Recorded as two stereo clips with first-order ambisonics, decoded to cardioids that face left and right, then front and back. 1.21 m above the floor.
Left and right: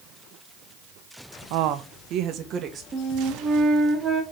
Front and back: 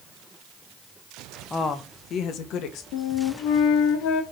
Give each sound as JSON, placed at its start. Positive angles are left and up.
{"t": 1.5, "sound": "a woman speaking", "azimuth_deg": -80, "distance_m": 0.6}
{"t": 2.9, "sound": "a flute", "azimuth_deg": -20, "distance_m": 1.7}